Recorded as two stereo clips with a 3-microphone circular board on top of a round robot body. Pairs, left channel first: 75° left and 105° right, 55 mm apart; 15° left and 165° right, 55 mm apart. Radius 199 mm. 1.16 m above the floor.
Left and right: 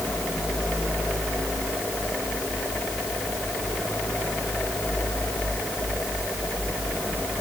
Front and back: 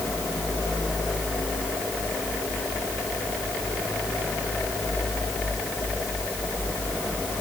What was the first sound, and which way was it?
Only background noise.